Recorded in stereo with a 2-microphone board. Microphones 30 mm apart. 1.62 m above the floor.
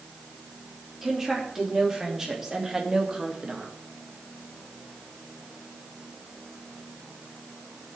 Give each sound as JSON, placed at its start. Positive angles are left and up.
{"t": 1.0, "sound": "a woman speaking", "side_deg": -10, "distance_m": 4.0}